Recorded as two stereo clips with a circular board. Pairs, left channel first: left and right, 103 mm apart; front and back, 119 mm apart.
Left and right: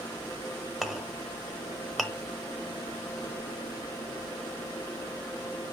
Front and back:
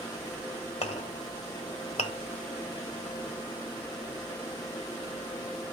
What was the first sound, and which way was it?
A clink, straight ahead.